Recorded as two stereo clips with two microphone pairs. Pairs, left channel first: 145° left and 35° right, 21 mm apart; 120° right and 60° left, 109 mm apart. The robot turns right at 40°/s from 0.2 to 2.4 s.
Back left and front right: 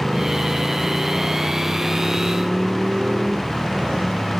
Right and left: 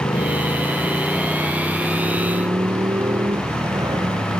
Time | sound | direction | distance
0.0 | a motorcycle | 85° right | ?